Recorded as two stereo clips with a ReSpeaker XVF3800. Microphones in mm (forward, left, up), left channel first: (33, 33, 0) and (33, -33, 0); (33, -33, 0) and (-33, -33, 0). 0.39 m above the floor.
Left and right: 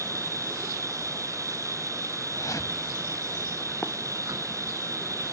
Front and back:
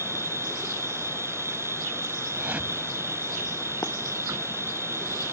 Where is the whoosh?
115° left.